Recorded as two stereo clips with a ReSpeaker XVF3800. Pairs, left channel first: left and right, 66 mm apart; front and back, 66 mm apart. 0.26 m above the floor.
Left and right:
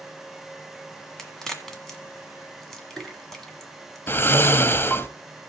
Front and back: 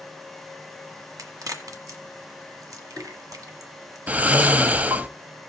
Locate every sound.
1.2 s a crack: 170° left, 1.5 m
4.1 s snoring: 125° left, 0.5 m